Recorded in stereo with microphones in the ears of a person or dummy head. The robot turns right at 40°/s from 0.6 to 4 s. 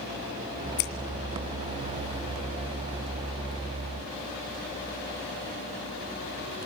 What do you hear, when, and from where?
0.8 s scissors: 55° left (ahead or behind), 2 m